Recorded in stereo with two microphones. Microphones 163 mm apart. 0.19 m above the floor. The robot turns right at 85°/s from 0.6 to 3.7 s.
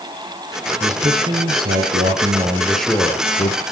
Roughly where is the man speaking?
Behind.